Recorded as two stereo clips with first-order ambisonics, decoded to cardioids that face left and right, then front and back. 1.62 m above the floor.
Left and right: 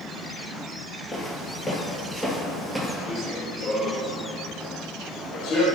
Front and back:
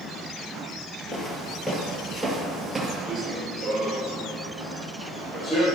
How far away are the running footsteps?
About 1.8 m.